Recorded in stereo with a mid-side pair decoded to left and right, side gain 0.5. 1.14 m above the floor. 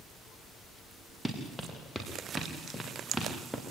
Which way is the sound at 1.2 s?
Straight ahead.